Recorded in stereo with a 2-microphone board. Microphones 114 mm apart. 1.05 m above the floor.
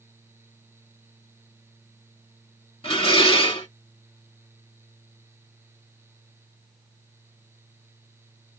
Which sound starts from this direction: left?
Dishes clattering, at 2.8 s.